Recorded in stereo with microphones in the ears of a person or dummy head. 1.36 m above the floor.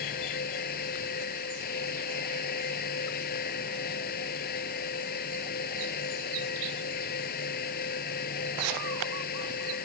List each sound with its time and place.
0.0 s a fan: 50° left (ahead or behind)